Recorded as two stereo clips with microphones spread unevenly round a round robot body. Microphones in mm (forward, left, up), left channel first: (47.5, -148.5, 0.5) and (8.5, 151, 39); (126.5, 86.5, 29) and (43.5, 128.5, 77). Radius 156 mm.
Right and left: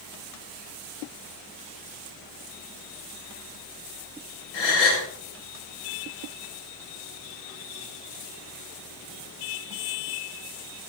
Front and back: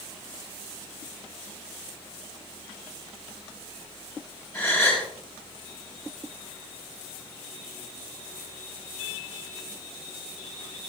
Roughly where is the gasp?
Right.